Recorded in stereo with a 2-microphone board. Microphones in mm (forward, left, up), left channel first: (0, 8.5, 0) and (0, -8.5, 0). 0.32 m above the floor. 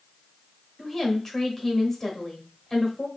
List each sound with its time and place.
0.8 s a woman speaking: 25° left (ahead or behind), 1.1 m